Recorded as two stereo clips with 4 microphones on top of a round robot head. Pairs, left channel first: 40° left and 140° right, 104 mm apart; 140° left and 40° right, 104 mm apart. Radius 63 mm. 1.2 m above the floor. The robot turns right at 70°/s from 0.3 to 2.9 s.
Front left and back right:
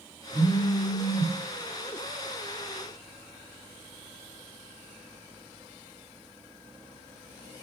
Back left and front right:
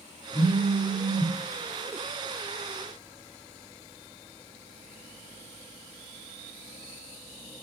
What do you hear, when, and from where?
0.3 s a phone buzzing: 150° left, 1.4 m; by 1.3 s 140° right, 1.4 m